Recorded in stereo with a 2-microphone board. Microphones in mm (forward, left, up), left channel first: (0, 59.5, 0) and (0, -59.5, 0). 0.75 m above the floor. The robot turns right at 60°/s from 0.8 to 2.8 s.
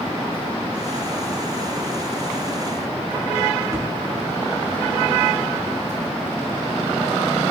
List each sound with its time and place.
3.7 s a thud: 30° right (ahead or behind), 3.5 m